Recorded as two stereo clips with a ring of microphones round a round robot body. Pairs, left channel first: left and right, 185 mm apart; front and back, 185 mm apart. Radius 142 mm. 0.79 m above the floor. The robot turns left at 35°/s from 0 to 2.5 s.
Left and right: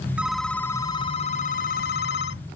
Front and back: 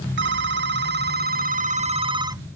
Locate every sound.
0.2 s a phone ringing: 175° right; by 2.4 s 105° left